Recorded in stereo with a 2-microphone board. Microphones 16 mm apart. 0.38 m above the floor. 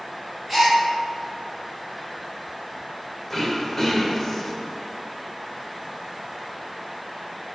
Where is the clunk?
No clunk in this recording.